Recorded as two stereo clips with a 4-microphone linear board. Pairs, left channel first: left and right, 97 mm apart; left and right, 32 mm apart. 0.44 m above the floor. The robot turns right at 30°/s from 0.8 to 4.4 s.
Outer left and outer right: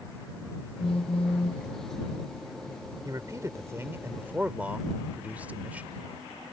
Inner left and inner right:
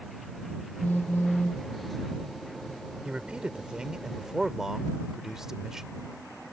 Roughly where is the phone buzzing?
Left.